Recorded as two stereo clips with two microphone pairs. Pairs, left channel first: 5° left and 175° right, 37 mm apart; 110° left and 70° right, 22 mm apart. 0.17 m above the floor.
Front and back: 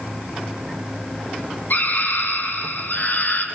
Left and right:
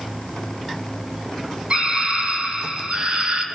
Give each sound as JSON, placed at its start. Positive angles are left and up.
{"t": 1.7, "sound": "a scream", "azimuth_deg": -25, "distance_m": 5.0}